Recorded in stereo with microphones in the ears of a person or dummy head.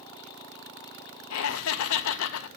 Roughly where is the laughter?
Left.